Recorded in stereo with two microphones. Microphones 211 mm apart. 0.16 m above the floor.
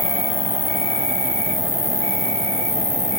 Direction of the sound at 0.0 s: 80° left.